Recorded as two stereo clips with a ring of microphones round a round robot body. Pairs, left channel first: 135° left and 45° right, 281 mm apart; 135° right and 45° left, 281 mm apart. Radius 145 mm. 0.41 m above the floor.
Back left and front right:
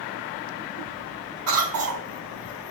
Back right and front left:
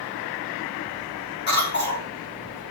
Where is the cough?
75° right, 5 m.